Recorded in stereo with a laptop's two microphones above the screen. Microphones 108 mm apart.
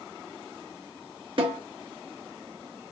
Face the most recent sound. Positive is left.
turn(degrees=-55)  # may be behind; listen again after turning